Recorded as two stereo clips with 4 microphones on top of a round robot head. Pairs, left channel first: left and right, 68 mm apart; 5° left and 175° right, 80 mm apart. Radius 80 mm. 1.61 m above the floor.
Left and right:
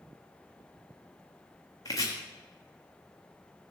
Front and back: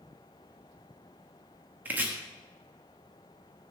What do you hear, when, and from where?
1.9 s chopping: 135° left, 1.1 m